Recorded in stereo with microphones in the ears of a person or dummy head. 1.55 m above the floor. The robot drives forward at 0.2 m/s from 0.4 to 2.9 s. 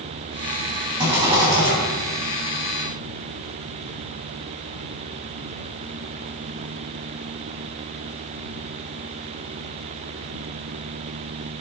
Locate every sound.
1.0 s a rattle: 25° right (ahead or behind), 1.3 m